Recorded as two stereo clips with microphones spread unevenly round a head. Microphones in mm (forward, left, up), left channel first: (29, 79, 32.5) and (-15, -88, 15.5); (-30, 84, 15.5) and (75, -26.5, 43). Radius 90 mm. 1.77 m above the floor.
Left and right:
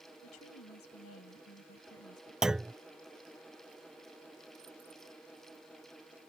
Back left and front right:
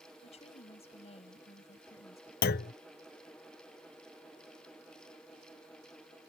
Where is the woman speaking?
80° left.